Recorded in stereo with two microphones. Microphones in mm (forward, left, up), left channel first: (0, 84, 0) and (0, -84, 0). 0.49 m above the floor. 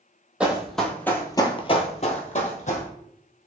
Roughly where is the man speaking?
No man speaking in this recording.